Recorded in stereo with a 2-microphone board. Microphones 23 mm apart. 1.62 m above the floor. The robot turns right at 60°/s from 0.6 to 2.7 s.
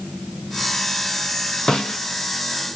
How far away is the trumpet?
No trumpet in this recording.